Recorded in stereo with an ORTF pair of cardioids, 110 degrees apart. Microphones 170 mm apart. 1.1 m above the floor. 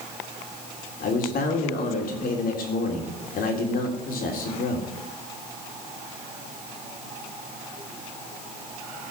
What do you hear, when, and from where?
1.0 s a man speaking: 60° left, 3.5 m